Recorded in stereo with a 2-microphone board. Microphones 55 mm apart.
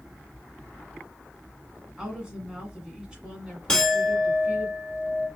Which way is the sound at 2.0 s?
15° right (ahead or behind).